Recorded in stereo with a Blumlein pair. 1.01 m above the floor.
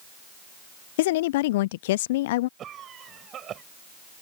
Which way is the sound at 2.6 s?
30° right.